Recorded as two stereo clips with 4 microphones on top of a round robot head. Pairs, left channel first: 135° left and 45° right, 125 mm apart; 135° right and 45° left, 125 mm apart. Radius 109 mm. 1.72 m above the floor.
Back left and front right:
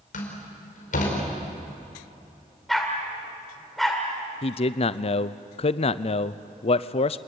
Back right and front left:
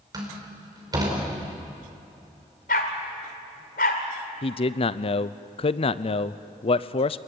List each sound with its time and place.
0.1 s a door slam: 110° left, 5 m
2.7 s a dog barking: 135° right, 1.8 m
4.4 s a man speaking: straight behind, 0.6 m